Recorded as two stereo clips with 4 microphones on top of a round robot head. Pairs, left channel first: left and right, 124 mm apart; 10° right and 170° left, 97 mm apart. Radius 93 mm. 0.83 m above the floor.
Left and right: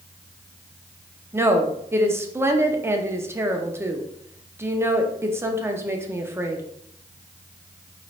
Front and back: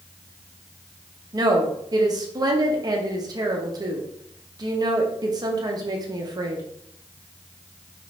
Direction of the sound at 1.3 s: 155° right.